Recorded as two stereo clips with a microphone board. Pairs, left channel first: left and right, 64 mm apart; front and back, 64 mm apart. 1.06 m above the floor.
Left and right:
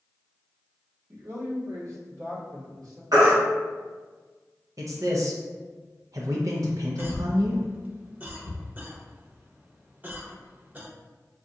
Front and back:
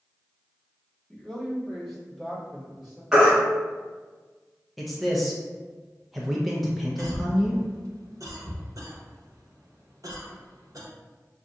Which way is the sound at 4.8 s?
90° right.